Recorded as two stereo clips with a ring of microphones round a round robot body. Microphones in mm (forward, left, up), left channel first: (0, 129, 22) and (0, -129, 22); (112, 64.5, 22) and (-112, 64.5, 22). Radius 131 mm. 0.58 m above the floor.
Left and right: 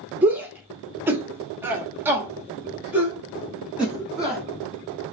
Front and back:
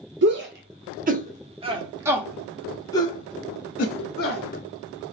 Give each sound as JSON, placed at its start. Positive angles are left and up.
{"t": 0.2, "sound": "a shout", "azimuth_deg": -170, "distance_m": 1.8}